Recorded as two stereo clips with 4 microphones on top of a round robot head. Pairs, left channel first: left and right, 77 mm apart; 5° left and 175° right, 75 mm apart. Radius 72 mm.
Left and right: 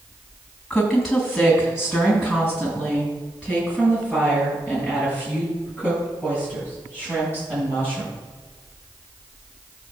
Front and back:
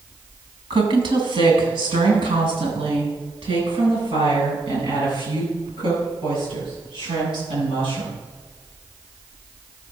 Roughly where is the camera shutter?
I don't hear a camera shutter.